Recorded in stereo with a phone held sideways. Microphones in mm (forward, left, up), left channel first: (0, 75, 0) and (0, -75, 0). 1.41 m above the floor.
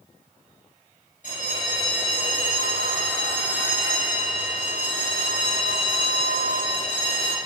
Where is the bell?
55° left (ahead or behind), 3.5 m.